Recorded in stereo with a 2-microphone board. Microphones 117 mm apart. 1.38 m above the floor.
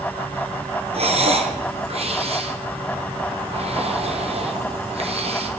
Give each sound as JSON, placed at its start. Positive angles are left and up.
{"t": 0.9, "sound": "breathing", "side_deg": -60, "distance_m": 1.0}